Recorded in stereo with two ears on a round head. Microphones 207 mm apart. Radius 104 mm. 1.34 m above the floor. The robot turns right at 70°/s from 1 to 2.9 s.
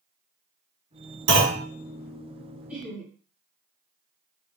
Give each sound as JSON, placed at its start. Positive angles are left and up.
{"t": 1.3, "sound": "a clunk", "side_deg": -55, "distance_m": 2.5}
{"t": 2.7, "sound": "laughter", "side_deg": -5, "distance_m": 3.0}